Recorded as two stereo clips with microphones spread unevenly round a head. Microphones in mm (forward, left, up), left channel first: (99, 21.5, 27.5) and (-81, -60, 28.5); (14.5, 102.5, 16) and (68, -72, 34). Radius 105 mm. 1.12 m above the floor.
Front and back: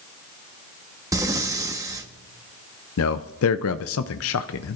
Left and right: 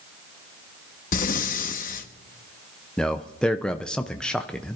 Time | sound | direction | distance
1.1 | breathing | 135° left | 1.0 m
3.0 | a man speaking | 20° left | 0.5 m